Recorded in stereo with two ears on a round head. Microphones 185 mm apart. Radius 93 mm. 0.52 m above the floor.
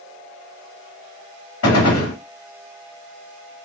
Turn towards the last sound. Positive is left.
turn(degrees=85)